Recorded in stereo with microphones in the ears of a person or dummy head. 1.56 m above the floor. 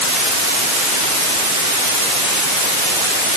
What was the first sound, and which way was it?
Only background noise.